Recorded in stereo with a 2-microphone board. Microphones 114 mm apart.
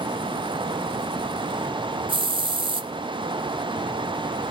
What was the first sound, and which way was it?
A hiss, 50° right (ahead or behind).